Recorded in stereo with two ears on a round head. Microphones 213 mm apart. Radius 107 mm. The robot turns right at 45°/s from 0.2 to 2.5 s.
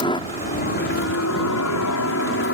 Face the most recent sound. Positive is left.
turn(degrees=125)